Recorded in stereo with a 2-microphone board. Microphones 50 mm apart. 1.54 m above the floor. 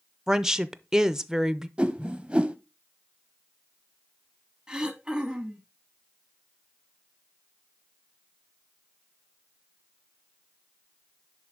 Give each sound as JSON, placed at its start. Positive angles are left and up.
{"t": 0.3, "sound": "a woman speaking", "side_deg": -10, "distance_m": 0.6}
{"t": 1.8, "sound": "a whoosh", "side_deg": -20, "distance_m": 0.7}
{"t": 4.7, "sound": "throat clearing", "side_deg": -10, "distance_m": 1.1}